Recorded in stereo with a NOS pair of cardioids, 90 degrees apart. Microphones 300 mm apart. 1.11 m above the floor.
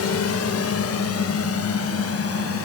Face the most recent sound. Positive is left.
turn(degrees=50)